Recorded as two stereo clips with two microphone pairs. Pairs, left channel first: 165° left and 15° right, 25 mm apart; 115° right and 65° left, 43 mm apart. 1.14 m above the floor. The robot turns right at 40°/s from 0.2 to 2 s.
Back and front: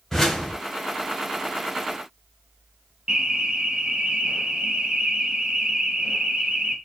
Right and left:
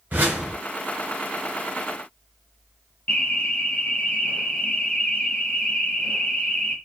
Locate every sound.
0.1 s a whoosh: 90° left, 1.2 m; by 0.6 s 105° left, 1.2 m
3.1 s an alarm: 60° right, 0.6 m